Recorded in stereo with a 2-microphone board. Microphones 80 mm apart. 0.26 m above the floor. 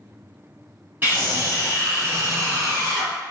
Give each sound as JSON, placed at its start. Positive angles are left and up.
{"t": 1.0, "sound": "a scream", "side_deg": -25, "distance_m": 1.9}